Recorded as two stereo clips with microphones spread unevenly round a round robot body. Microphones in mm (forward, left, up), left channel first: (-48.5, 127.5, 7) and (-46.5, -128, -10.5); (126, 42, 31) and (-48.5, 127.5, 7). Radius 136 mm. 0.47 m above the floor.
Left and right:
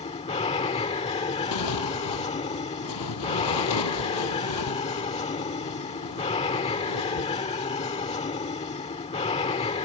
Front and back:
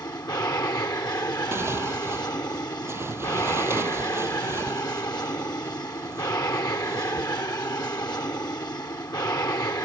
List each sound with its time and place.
0.0 s an aircraft: 40° left
1.5 s tearing paper: 75° left